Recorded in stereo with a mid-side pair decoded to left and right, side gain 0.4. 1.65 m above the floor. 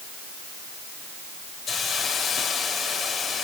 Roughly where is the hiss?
Left.